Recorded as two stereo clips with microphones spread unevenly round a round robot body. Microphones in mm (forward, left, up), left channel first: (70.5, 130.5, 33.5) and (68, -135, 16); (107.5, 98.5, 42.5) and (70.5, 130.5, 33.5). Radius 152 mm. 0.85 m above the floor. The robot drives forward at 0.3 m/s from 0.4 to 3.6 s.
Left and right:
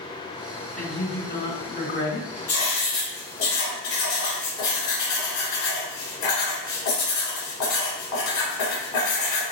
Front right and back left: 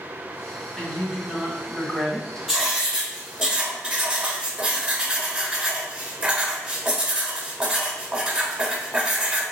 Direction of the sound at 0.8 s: 45° left.